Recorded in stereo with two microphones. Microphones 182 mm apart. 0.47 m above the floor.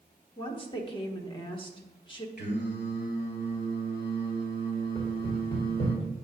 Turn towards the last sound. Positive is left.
turn(degrees=25)  # may be behind; listen again after turning